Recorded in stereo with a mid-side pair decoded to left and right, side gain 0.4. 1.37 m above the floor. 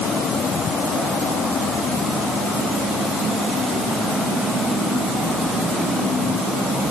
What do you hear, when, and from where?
Only background noise.